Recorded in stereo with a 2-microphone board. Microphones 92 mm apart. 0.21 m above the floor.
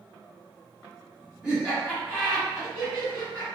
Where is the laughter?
5° right (ahead or behind), 1.6 m; by 3.5 s 30° right (ahead or behind), 2.5 m.